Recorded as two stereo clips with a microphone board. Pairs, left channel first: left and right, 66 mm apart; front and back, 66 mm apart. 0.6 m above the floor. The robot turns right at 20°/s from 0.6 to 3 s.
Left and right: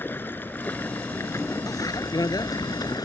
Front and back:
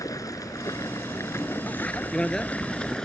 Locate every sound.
0.0 s running water: 30° left; by 3.1 s 80° left
1.7 s a bicycle bell: 65° left; by 3.0 s 90° left